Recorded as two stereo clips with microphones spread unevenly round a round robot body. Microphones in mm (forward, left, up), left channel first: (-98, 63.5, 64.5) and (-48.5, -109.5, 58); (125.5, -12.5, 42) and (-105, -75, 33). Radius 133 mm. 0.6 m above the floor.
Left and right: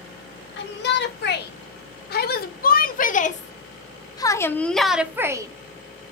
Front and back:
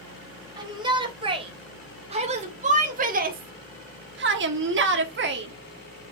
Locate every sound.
0.6 s a shout: 120° left, 3.5 m; by 6.1 s 120° right, 1.8 m